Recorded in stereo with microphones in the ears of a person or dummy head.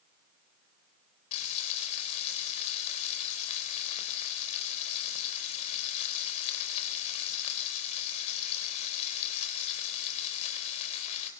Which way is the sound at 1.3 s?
40° left (ahead or behind).